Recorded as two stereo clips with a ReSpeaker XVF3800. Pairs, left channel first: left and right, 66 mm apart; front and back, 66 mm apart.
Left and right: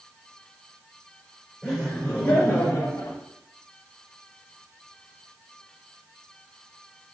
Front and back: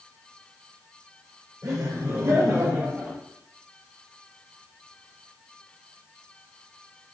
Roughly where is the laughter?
Behind.